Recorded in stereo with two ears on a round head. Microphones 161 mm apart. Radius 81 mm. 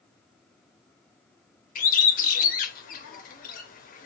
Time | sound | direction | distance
1.8 | a bird | 50° left (ahead or behind) | 0.5 m